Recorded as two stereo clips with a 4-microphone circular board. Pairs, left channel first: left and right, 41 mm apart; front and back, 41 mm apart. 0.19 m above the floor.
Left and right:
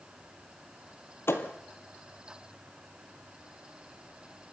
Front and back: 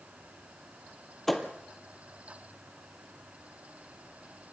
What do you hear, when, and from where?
1.3 s a thud: 85° left, 1.7 m